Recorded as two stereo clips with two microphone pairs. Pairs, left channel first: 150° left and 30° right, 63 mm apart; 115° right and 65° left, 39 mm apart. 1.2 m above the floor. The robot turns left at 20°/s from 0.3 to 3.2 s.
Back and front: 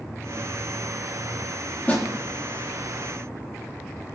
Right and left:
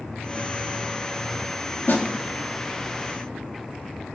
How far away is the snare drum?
About 1.8 m.